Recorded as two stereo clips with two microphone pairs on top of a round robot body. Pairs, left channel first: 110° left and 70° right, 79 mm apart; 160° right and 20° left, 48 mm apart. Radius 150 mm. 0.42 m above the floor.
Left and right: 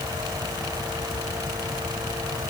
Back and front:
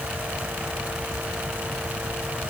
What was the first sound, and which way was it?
Only background noise.